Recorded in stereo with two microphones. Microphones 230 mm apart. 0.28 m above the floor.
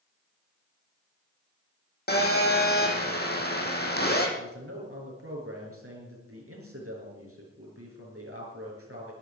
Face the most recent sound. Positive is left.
turn(degrees=-75)  # may be behind; listen again after turning